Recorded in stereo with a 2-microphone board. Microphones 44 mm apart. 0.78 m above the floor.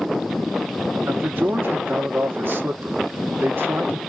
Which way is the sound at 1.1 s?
55° right (ahead or behind).